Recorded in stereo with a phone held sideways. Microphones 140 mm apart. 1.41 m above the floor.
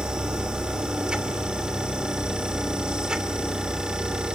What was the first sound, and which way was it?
A machine running, 5° right (ahead or behind).